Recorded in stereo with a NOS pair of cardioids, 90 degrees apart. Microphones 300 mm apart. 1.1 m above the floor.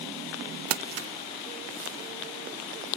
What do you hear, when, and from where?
0.7 s crumpling: 60° right, 0.8 m